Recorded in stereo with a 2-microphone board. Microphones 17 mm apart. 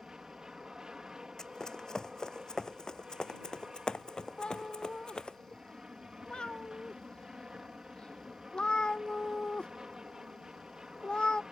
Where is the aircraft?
50° right (ahead or behind).